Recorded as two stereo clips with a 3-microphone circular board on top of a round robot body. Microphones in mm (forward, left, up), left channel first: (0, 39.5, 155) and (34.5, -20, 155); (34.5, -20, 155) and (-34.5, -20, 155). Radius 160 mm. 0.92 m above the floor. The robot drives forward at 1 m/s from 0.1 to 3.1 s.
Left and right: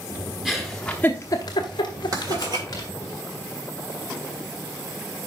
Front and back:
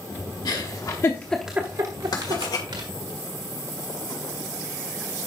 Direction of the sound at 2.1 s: 25° right.